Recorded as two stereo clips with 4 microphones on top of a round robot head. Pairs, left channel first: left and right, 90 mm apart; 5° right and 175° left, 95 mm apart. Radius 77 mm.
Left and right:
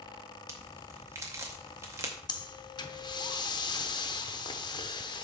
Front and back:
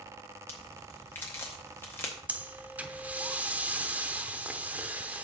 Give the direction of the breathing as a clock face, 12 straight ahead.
8 o'clock.